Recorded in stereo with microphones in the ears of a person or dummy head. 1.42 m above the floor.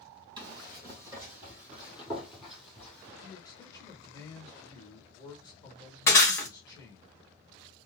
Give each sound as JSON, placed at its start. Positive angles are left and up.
{"t": 0.4, "sound": "running footsteps", "side_deg": -25, "distance_m": 2.0}
{"t": 3.2, "sound": "a man speaking", "side_deg": 20, "distance_m": 1.0}
{"t": 6.1, "sound": "breaking glass", "side_deg": 15, "distance_m": 1.3}